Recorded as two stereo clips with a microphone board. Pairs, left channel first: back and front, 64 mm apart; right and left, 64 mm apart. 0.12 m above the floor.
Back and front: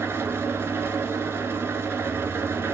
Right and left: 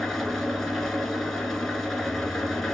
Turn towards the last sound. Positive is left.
turn(degrees=-5)